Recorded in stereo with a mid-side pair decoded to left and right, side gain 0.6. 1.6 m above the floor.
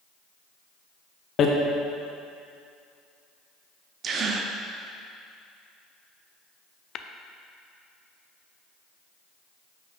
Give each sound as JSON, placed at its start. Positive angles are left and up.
{"t": 1.4, "sound": "hammering", "azimuth_deg": 45, "distance_m": 1.0}
{"t": 4.0, "sound": "a gasp", "azimuth_deg": -45, "distance_m": 0.7}
{"t": 7.0, "sound": "tapping", "azimuth_deg": 45, "distance_m": 0.5}